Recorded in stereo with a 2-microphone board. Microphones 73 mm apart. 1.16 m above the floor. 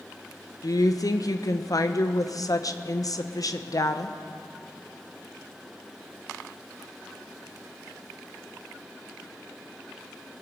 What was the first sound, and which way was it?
A woman speaking, 55° left (ahead or behind).